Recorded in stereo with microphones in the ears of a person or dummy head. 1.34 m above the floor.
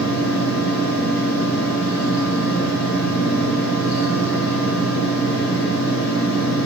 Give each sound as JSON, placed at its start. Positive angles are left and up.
{"t": 0.0, "sound": "a fan", "side_deg": 50, "distance_m": 1.8}